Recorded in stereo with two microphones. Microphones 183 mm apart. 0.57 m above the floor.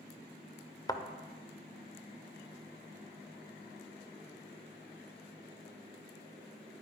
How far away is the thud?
About 0.7 m.